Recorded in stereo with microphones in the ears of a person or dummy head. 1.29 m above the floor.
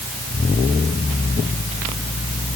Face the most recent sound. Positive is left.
No sound to turn to.